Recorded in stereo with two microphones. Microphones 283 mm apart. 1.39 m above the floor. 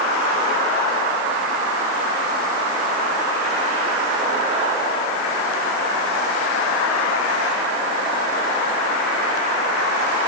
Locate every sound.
Only background noise.